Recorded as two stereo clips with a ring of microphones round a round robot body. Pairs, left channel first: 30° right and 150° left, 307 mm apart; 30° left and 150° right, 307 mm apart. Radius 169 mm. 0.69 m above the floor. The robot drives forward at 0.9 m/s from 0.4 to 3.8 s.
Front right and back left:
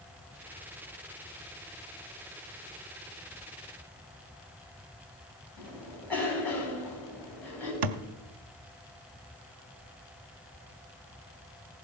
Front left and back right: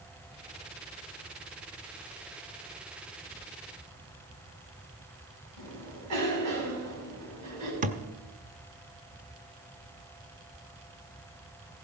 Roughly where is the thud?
Behind left.